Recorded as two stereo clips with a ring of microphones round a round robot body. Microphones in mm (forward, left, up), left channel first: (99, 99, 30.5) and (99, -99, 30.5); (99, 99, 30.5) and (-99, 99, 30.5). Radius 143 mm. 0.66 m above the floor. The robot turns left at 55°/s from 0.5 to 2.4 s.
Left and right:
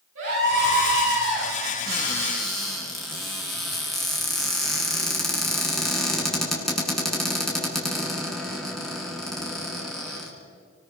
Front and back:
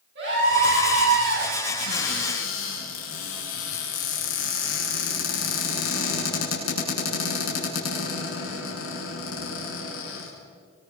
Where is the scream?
130° right, 9.5 m; by 1.5 s straight behind, 9.5 m.